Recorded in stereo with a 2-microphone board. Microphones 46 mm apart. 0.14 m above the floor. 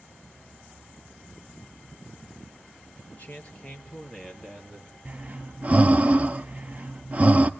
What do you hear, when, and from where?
3.1 s a man speaking: 40° left (ahead or behind), 2.5 m; by 5.0 s 5° right (ahead or behind), 3.5 m
5.0 s breathing: 35° right (ahead or behind), 0.6 m